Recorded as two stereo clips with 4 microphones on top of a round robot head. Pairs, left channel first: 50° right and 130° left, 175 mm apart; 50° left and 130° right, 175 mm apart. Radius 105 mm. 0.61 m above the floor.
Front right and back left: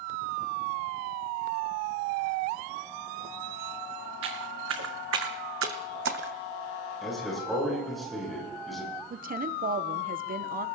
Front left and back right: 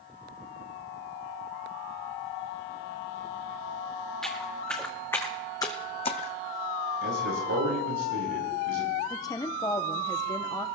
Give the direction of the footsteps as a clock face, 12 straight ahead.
7 o'clock.